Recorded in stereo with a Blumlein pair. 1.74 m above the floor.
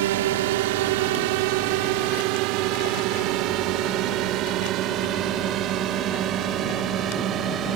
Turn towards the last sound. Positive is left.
turn(degrees=-25)